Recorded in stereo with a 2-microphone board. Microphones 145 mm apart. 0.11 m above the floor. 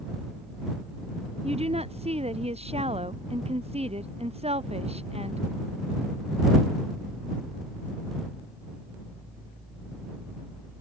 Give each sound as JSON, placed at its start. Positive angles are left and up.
{"t": 1.4, "sound": "a woman speaking", "side_deg": -50}